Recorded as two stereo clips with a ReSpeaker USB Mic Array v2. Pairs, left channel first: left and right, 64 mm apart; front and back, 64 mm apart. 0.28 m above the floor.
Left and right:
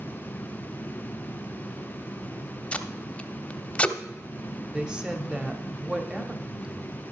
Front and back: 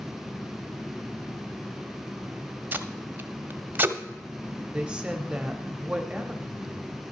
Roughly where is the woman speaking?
Behind right.